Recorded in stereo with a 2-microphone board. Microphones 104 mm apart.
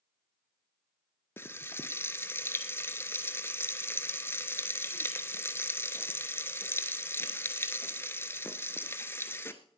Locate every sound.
1.4 s frying: 20° left (ahead or behind), 1.1 m